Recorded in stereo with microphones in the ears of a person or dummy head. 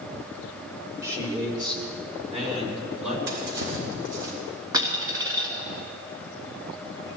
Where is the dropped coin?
20° right (ahead or behind), 3 m.